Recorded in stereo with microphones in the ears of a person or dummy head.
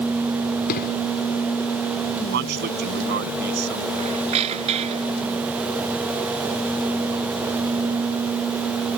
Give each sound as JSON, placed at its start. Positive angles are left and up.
{"t": 0.7, "sound": "an explosion", "side_deg": 55}
{"t": 2.3, "sound": "a man speaking", "side_deg": -55}
{"t": 3.9, "sound": "a squeak", "side_deg": -35}